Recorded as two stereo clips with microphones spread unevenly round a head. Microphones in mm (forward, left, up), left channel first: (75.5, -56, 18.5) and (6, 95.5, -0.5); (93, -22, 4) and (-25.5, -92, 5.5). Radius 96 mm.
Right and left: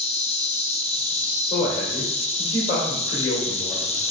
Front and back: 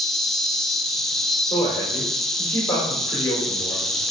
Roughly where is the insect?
Ahead right.